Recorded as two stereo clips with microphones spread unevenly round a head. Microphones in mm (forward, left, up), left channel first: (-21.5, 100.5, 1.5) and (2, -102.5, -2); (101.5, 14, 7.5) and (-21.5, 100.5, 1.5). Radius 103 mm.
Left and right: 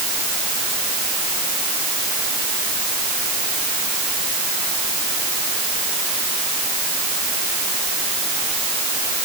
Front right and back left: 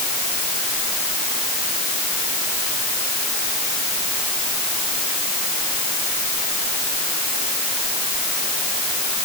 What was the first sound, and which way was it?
Only background noise.